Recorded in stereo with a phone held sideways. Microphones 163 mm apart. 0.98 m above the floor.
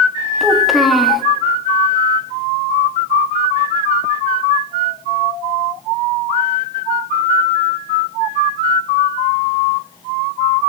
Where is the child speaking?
Centre (ahead or behind), 0.9 m.